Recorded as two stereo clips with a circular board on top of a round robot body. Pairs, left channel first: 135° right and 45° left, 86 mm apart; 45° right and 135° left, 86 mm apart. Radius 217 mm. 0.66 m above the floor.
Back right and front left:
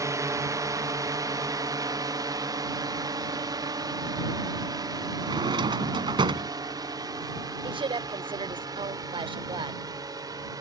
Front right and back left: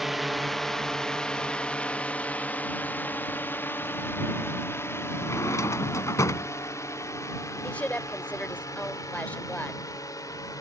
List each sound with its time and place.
0.0 s a drone: 45° left; by 10.6 s straight ahead
5.2 s a drawer: 10° left
7.6 s a woman speaking: 30° left